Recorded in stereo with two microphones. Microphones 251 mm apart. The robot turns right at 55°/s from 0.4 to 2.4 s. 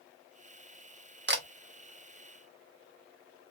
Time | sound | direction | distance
1.3 | a camera shutter | 45° right (ahead or behind) | 0.7 m